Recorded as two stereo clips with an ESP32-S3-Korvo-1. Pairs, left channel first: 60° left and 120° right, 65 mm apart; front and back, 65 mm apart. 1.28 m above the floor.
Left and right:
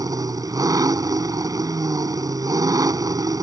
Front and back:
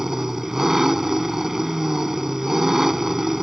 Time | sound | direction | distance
0.0 | an engine running | 95° right | ?